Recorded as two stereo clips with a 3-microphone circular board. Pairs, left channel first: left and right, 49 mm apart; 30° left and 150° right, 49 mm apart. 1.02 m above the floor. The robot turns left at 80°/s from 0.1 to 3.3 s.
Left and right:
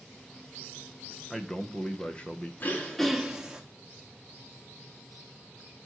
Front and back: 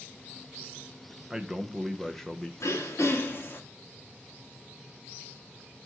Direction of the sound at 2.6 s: 40° left.